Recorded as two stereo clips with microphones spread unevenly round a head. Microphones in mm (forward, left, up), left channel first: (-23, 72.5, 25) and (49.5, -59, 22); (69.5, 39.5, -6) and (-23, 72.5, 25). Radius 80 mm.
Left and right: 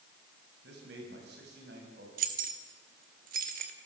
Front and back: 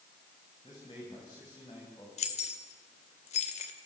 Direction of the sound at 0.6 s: 80° right.